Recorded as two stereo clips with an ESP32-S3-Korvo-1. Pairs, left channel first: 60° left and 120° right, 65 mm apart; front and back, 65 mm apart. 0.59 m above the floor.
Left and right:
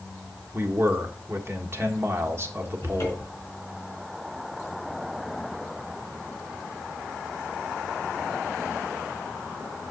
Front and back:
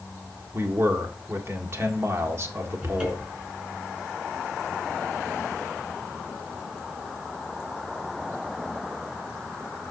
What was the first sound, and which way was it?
A man speaking, 150° right.